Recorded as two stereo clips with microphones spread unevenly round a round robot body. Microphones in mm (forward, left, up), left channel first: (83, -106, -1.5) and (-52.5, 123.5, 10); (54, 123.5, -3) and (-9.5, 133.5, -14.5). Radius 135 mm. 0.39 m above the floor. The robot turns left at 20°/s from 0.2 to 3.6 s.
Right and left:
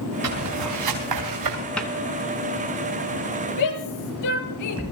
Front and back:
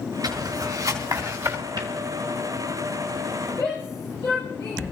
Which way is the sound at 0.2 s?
155° left.